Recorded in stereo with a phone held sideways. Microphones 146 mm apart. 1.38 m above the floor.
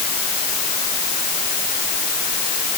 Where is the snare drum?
No snare drum in this recording.